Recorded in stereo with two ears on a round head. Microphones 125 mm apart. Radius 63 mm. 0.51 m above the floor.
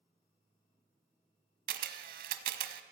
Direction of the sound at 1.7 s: 70° right (ahead or behind).